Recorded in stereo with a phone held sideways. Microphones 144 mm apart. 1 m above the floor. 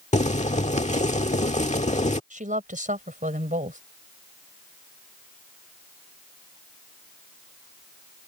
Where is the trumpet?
No trumpet in this recording.